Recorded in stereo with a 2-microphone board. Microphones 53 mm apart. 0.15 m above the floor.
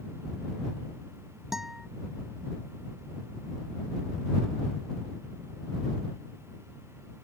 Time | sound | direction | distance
1.5 | a guitar | 5° right (ahead or behind) | ?